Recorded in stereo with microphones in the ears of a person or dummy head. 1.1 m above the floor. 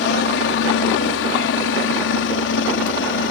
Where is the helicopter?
60° left (ahead or behind).